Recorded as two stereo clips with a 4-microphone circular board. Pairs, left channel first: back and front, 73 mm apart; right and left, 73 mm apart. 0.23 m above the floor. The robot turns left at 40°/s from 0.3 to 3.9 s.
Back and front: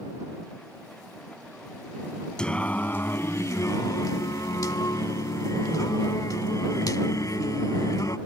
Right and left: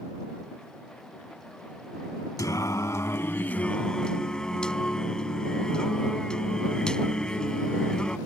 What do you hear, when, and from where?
2.4 s singing: 105° right; by 8.2 s 165° right